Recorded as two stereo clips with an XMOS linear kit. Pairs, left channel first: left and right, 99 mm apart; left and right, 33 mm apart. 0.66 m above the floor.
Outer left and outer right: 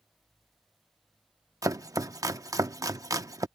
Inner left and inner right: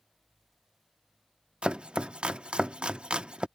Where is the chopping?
35° right (ahead or behind).